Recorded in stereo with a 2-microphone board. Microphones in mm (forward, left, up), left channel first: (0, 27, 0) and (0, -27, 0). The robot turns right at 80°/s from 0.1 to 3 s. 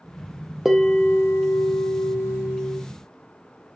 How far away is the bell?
About 1.9 m.